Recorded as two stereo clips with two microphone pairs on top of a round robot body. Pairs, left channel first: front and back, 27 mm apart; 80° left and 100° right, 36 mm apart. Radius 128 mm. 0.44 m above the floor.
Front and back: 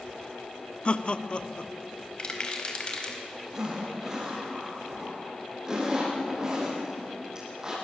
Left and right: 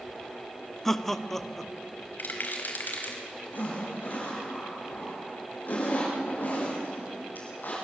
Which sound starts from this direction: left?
A zipper, at 3.5 s.